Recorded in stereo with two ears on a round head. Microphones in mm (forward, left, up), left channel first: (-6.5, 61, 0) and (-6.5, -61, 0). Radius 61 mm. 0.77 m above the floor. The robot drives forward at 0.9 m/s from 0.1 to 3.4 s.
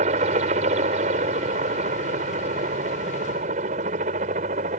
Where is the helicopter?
50° right (ahead or behind); by 4.8 s 55° right (ahead or behind).